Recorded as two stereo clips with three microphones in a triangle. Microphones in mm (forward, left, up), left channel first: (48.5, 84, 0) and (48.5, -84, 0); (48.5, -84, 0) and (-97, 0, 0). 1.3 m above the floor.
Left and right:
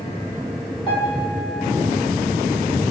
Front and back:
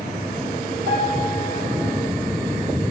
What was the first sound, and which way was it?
A piano, 155° left.